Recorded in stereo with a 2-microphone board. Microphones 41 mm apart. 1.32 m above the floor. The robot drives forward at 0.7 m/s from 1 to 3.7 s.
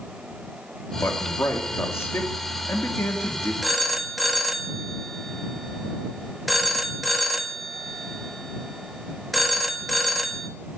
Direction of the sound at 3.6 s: Centre (ahead or behind).